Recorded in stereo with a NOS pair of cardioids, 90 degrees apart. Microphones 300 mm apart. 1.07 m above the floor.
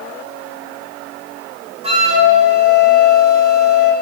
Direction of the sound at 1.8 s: 20° right.